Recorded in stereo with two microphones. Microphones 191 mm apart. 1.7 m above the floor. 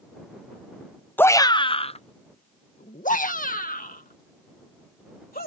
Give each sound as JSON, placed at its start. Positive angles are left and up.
{"t": 1.2, "sound": "a shout", "side_deg": 10}